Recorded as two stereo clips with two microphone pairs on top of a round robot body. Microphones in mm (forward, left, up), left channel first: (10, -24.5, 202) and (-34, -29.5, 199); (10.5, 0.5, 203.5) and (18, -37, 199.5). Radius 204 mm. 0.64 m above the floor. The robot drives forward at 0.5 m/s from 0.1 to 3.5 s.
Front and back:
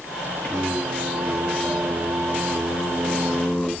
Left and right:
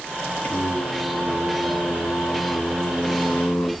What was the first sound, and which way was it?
Singing, 75° left.